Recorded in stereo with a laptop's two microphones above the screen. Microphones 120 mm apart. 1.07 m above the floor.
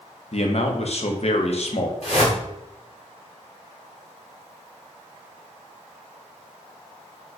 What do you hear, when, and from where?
0.3 s a man speaking: 55° left (ahead or behind), 0.7 m
2.0 s a whoosh: 55° left (ahead or behind), 1.2 m